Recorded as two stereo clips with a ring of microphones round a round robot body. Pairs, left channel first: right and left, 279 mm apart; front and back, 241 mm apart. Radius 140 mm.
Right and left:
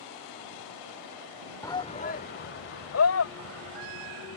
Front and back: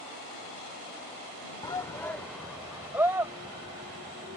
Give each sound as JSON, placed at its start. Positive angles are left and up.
{"t": 1.6, "sound": "a shout", "azimuth_deg": -35}